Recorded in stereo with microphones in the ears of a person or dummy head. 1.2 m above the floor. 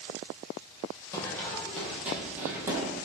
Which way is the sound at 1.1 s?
10° left (ahead or behind).